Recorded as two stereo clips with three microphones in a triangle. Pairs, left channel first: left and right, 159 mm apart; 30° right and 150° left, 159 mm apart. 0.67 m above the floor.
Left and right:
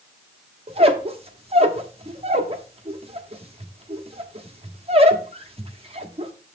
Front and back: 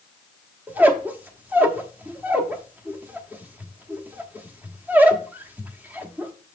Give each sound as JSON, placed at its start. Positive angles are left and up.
{"t": 0.7, "sound": "a squeak", "azimuth_deg": -130, "distance_m": 0.9}